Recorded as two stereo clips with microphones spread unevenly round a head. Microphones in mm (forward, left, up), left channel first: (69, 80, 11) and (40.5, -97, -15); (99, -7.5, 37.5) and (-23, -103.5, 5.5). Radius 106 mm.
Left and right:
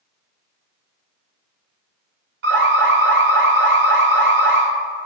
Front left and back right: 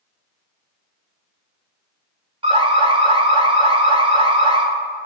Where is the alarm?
90° right, 4.5 m.